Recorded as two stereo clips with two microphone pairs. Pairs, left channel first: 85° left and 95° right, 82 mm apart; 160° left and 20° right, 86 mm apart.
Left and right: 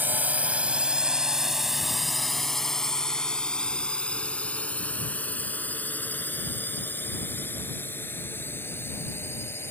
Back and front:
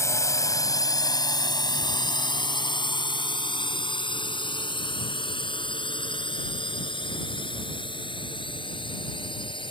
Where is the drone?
155° right; by 9.7 s 145° left.